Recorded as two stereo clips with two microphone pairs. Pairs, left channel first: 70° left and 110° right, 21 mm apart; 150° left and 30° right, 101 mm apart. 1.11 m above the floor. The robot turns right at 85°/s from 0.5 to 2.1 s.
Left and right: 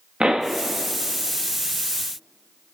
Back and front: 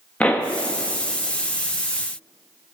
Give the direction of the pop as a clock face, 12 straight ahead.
4 o'clock.